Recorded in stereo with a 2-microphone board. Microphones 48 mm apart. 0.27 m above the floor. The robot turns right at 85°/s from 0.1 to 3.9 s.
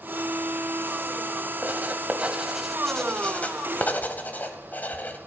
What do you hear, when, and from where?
1.6 s writing: 40° right (ahead or behind), 1.5 m; by 5.2 s 40° left (ahead or behind), 1.5 m